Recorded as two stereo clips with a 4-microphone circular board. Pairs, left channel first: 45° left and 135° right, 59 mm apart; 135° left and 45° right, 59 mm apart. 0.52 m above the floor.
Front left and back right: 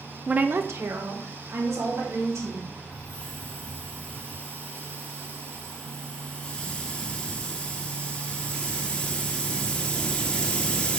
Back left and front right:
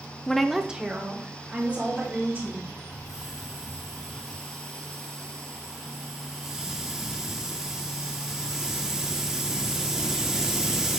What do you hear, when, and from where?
0.3 s a woman speaking: 165° right, 0.6 m; by 2.8 s 105° right, 4 m
2.9 s a hiss: 15° left, 1.0 m